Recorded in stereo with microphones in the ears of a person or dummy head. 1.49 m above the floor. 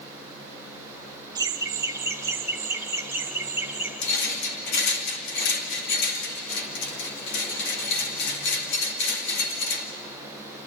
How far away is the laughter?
About 1.3 m.